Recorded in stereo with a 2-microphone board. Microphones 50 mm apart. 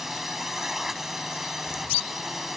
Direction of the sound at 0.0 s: 5° right (ahead or behind).